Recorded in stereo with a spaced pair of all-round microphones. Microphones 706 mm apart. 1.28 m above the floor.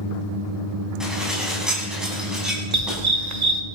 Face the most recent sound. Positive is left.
turn(degrees=-70)  # may be behind; listen again after turning